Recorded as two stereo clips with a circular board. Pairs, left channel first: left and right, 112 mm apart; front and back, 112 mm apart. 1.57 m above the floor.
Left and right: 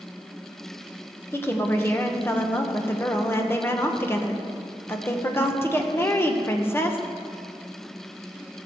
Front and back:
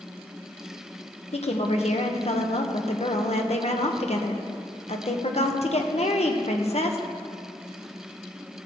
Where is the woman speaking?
20° left, 1.1 m.